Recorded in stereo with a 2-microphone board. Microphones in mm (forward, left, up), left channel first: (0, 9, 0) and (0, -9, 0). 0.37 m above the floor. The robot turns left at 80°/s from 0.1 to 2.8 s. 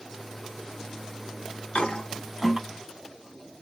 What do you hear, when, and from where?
1.8 s a toilet flushing: 55° left (ahead or behind), 0.7 m; by 2.6 s 10° right (ahead or behind), 0.7 m